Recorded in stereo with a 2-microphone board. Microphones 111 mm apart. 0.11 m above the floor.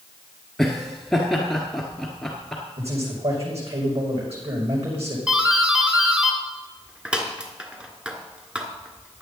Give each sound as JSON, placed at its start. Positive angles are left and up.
{"t": 0.6, "sound": "laughter", "side_deg": 5, "distance_m": 1.4}
{"t": 2.8, "sound": "a man speaking", "side_deg": -70, "distance_m": 6.5}
{"t": 5.3, "sound": "a doorbell", "side_deg": -10, "distance_m": 1.6}